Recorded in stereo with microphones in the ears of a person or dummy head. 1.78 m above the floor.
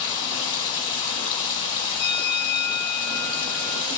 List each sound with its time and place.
0.0 s running water: 35° left (ahead or behind), 1.9 m
2.0 s a bell: 30° left (ahead or behind), 0.5 m